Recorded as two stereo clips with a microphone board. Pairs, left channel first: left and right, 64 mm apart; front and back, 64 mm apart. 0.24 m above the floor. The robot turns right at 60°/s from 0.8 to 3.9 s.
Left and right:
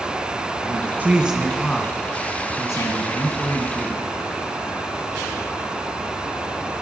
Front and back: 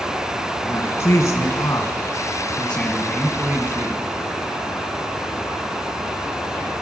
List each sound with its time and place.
0.6 s a man speaking: 35° right, 1.9 m; by 4.0 s 150° left, 1.9 m